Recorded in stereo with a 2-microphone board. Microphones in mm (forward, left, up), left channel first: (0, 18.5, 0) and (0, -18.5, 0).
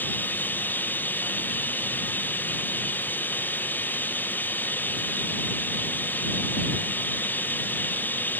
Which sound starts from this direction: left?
Running water, at 0.0 s.